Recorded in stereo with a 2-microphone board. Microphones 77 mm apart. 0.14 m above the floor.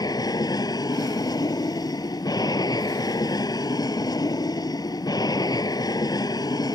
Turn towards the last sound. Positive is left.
turn(degrees=60)  # may be behind; listen again after turning